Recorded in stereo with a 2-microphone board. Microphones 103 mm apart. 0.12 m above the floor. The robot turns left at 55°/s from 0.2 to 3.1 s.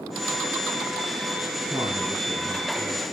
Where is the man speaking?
125° right, 1.7 m; by 3.0 s 155° left, 1.7 m.